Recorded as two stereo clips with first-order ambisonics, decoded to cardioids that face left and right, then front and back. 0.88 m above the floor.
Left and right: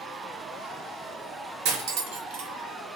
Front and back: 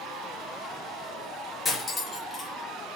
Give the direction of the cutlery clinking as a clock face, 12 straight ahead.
3 o'clock.